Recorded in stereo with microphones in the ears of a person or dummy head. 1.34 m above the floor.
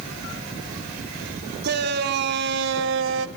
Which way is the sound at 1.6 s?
55° right (ahead or behind).